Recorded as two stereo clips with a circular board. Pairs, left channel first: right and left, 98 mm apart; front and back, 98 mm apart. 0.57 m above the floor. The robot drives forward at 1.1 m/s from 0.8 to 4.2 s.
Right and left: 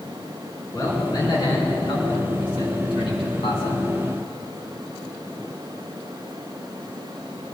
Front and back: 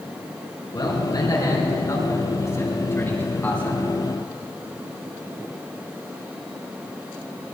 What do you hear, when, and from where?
0.7 s a man speaking: 40° right, 5.5 m; by 3.8 s 80° right, 3.5 m